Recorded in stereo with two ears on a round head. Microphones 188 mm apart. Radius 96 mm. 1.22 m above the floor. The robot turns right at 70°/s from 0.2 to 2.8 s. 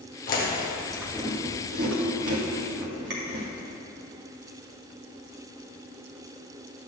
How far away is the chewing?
About 1.8 m.